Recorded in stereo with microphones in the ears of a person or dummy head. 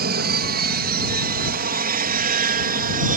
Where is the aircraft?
55° right (ahead or behind); by 3.2 s 50° right (ahead or behind).